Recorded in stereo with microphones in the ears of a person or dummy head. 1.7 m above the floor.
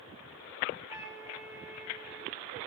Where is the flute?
15° right (ahead or behind), 3.5 m.